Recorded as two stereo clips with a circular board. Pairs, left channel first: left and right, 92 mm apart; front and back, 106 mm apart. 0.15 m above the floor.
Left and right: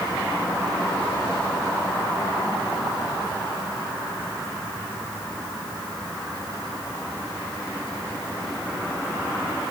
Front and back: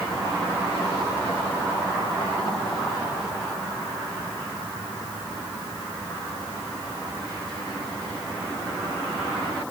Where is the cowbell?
No cowbell in this recording.